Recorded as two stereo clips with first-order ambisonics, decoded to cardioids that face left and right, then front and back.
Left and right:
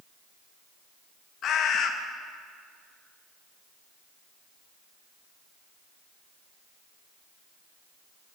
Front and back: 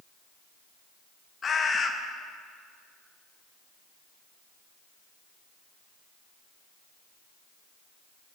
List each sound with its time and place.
1.4 s a bird: 60° left, 0.6 m